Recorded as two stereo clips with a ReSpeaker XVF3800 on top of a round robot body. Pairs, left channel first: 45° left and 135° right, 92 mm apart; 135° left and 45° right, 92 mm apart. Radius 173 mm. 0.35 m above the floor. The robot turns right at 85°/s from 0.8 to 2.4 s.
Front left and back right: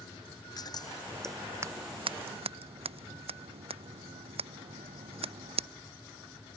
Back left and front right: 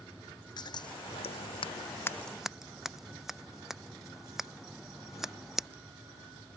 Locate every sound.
0.6 s scissors: 95° left; by 5.7 s 130° right